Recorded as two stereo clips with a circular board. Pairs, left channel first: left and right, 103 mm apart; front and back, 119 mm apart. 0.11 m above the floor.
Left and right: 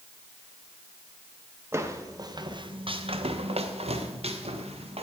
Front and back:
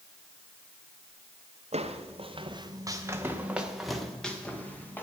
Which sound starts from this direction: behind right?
Footsteps, at 1.7 s.